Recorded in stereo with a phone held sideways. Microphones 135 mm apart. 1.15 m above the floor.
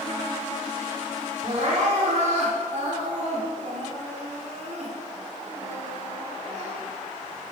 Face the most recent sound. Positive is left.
turn(degrees=-60)  # may be behind; listen again after turning